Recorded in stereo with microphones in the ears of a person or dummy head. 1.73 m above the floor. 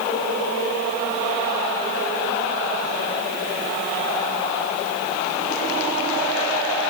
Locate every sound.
Only background noise.